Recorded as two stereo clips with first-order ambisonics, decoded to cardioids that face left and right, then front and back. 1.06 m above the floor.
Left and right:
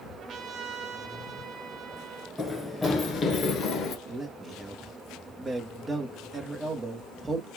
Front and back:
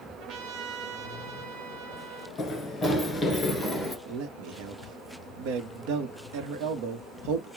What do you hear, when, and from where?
0.2 s a trumpet: 145° right, 0.9 m
2.4 s running footsteps: 15° left, 1.0 m; by 4.0 s 100° left, 1.2 m
4.1 s a man speaking: 170° right, 0.9 m